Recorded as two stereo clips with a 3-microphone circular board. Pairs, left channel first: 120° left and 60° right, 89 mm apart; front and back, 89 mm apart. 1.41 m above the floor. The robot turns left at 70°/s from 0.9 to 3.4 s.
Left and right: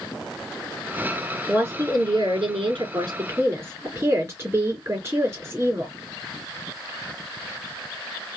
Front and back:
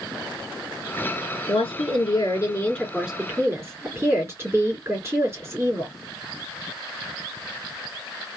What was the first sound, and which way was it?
A woman speaking, 20° left.